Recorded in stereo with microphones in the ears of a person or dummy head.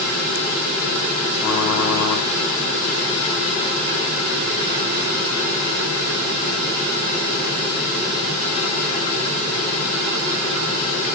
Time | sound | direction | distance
1.4 | typing on a keyboard | 35° left (ahead or behind) | 6 m